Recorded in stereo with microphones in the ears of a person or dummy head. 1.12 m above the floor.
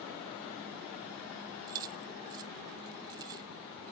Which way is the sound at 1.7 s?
25° right (ahead or behind).